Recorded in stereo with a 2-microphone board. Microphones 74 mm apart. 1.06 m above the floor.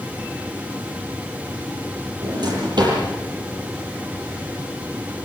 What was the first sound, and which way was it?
A drawer, 75° right (ahead or behind).